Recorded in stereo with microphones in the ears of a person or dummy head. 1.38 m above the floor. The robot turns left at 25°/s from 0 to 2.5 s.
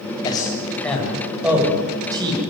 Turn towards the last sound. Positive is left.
turn(degrees=-30)  # may be behind; listen again after turning